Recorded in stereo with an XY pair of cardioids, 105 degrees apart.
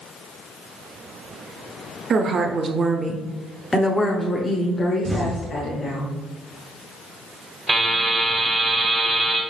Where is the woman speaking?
55° right, 1.0 m; by 6.0 s 60° left, 1.6 m.